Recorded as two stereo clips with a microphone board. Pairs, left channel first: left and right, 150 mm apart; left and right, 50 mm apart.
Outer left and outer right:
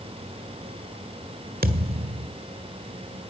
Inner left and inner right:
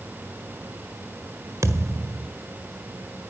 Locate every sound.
1.6 s a thud: 80° right, 1.7 m